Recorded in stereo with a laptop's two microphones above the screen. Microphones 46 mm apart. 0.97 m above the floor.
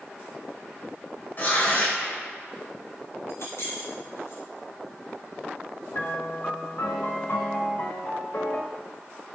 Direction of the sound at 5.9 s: 45° left (ahead or behind).